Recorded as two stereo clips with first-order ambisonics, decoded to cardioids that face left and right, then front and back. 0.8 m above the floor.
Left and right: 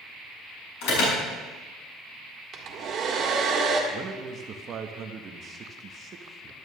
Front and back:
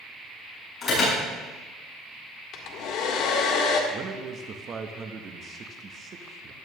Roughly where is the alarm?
Ahead left.